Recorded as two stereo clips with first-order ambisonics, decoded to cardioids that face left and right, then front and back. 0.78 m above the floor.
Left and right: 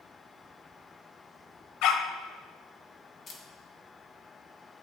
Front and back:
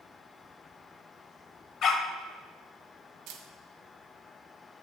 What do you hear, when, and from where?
1.8 s a dog barking: 55° left, 1.0 m
3.3 s a camera shutter: 155° left, 1.4 m